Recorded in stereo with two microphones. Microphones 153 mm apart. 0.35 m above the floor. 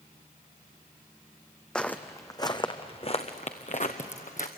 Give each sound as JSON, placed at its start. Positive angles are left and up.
{"t": 1.8, "sound": "footsteps", "side_deg": 5, "distance_m": 1.1}